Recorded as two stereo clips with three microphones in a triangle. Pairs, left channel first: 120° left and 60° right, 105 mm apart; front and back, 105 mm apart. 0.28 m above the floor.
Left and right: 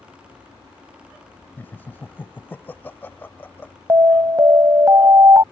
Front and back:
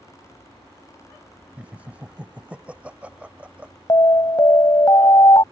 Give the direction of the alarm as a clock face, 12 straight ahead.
1 o'clock.